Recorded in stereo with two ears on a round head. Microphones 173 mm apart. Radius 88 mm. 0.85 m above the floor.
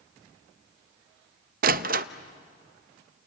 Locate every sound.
1.6 s a door slam: 50° right (ahead or behind), 0.6 m